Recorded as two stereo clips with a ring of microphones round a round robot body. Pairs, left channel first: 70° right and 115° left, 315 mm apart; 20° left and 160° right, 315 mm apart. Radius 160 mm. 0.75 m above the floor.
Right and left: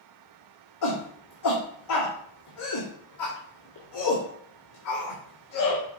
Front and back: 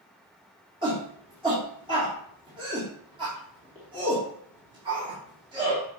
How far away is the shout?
About 2 m.